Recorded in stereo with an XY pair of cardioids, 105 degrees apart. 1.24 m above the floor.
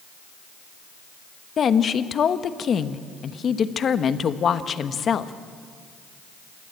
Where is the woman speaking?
45° left, 1.1 m.